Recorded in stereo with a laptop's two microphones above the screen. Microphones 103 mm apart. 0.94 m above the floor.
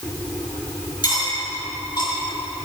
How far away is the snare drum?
I don't hear a snare drum.